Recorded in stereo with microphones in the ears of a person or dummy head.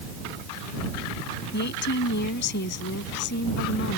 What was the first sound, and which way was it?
A woman speaking, 55° left (ahead or behind).